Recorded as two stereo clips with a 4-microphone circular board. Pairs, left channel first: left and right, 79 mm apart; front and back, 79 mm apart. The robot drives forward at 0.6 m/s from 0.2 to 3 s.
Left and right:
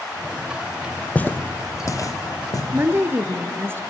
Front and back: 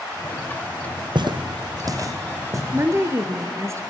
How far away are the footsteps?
About 0.9 m.